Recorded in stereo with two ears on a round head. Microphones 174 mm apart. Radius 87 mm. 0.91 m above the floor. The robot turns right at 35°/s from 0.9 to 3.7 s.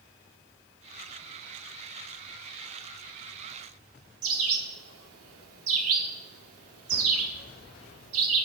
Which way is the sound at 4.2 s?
90° right.